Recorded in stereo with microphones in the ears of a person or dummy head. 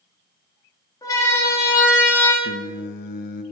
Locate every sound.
1.0 s a siren: 10° left (ahead or behind), 4.5 m; by 2.3 s 5° left (ahead or behind), 3.5 m
2.4 s singing: 55° left (ahead or behind), 1.1 m